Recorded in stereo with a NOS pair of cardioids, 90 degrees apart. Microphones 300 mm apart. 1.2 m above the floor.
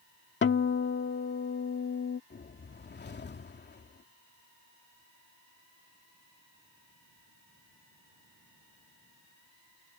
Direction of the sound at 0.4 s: 40° left.